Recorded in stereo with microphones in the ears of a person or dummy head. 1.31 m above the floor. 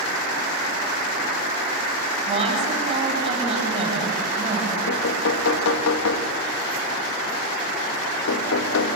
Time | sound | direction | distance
2.3 | a woman speaking | 35° right (ahead or behind) | 8.5 m
4.9 | knocking | 85° left | 1.5 m